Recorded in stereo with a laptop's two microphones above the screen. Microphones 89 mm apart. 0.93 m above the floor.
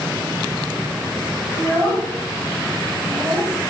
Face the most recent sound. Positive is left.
turn(degrees=10)  # may be behind; listen again after turning